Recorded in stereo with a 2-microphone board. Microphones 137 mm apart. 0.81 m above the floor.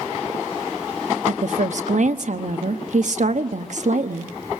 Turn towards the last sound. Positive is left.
turn(degrees=-60)  # may be behind; listen again after turning